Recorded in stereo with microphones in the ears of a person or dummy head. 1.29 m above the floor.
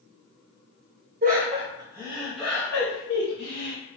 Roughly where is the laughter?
Right.